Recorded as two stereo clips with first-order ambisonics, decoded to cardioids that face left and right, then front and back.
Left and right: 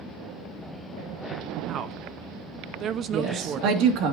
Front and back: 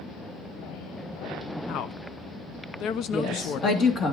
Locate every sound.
1.7 s a woman speaking: 40° right, 0.7 m
3.1 s a woman speaking: 60° right, 2 m